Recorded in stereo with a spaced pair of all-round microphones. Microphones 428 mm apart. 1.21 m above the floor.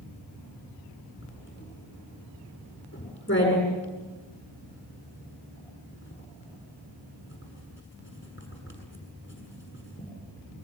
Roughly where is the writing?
Left.